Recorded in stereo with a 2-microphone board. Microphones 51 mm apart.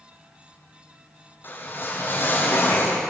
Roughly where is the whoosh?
Left.